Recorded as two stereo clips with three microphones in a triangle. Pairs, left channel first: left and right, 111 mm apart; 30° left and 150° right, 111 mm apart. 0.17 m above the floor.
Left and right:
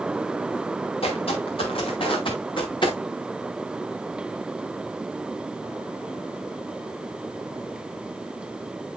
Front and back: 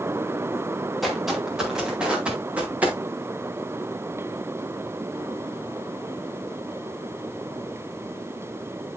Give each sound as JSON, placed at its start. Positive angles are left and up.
{"t": 1.0, "sound": "footsteps", "azimuth_deg": 120, "distance_m": 4.5}